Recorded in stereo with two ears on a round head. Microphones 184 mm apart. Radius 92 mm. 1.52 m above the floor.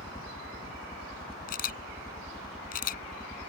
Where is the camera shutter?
40° left (ahead or behind).